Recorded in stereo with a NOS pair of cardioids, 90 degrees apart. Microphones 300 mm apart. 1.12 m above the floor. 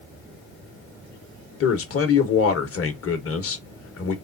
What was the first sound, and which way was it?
A man speaking, 50° left.